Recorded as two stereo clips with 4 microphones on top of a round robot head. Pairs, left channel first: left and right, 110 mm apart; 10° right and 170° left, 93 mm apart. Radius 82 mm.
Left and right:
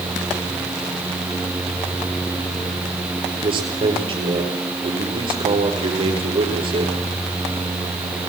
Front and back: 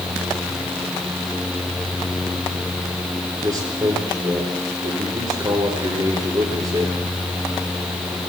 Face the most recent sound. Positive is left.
turn(degrees=-130)